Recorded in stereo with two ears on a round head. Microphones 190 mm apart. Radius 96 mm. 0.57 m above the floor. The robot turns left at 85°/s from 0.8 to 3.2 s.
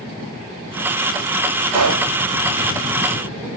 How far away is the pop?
About 1.1 m.